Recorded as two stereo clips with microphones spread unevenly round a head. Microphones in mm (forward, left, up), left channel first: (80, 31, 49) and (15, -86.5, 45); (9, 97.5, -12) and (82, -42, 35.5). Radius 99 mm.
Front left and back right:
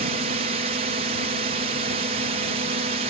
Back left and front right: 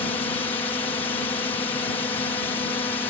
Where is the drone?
170° right.